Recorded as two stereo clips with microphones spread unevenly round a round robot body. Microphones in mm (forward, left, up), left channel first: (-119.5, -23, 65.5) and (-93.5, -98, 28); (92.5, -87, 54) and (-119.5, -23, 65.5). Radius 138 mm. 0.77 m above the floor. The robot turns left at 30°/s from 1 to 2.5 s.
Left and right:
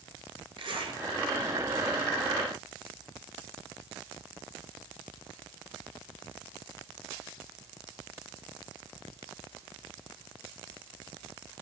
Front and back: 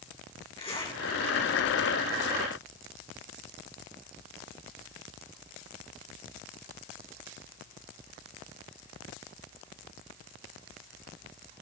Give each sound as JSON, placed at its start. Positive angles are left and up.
{"t": 0.6, "sound": "a zipper", "azimuth_deg": -85, "distance_m": 5.0}